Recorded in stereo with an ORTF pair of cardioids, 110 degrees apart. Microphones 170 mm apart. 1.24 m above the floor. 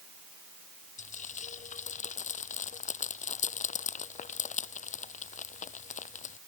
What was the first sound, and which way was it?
Frying, 45° left.